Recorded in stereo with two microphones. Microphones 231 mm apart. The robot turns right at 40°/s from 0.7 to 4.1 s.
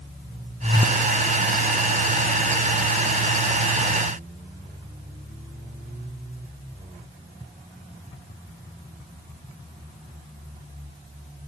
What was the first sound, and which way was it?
Only background noise.